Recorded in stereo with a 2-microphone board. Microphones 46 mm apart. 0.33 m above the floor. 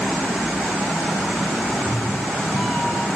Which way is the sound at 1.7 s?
5° left (ahead or behind).